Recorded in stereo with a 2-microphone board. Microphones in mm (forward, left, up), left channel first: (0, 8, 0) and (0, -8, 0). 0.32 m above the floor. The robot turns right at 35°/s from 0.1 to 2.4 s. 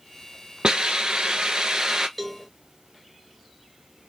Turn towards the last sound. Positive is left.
turn(degrees=-5)  # may be behind; listen again after turning